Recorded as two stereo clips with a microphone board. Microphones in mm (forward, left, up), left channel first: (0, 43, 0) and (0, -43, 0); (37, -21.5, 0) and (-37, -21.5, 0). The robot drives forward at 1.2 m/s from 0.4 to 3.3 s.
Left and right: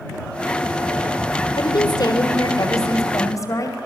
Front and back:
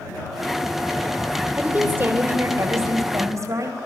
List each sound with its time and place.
1.6 s a woman speaking: 115° left, 3.5 m; by 3.8 s 140° left, 4.5 m